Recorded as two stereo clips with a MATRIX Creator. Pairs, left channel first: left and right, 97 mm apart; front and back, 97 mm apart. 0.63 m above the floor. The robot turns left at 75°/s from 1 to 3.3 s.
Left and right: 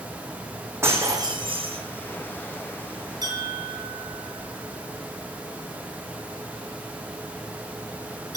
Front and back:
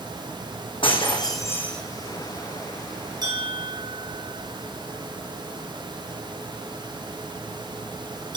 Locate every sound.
0.8 s breaking glass: 25° right, 3 m; by 1.8 s 85° right, 3 m
3.2 s a bell: 135° right, 4 m; by 8.4 s 140° right, 4 m